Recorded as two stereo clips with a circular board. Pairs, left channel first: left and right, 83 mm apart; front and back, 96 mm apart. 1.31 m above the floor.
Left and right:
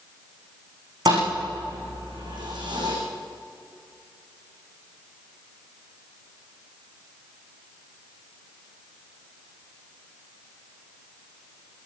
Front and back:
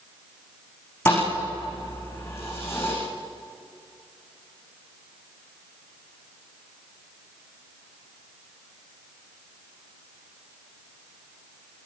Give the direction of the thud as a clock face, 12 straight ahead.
2 o'clock.